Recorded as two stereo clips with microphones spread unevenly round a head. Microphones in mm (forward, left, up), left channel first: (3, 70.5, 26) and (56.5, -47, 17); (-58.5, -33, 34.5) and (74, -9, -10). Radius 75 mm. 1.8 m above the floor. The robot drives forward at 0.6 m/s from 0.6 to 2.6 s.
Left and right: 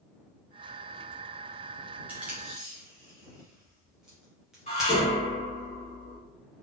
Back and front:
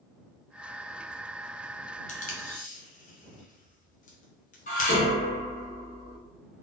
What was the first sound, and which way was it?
Tape being pulled, 145° right.